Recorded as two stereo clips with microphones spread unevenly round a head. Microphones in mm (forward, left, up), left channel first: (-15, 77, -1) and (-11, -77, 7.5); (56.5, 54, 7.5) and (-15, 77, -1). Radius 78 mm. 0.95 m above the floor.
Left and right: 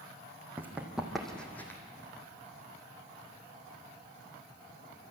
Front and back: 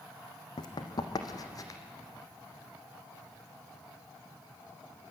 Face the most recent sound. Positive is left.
turn(degrees=15)